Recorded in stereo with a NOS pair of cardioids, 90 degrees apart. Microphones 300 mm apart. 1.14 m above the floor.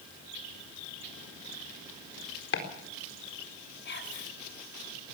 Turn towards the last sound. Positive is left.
turn(degrees=40)